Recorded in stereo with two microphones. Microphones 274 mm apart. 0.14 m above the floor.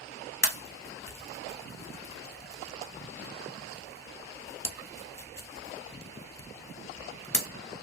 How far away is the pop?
About 0.7 m.